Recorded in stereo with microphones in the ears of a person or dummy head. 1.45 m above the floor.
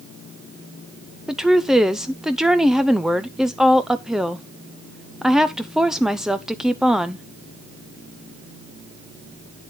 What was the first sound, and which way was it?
A woman speaking, centre (ahead or behind).